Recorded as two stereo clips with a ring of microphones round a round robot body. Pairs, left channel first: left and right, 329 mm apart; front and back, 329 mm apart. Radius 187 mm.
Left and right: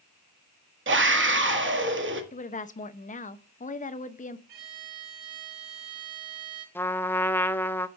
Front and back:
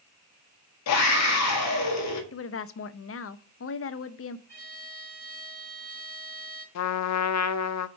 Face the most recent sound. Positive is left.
turn(degrees=5)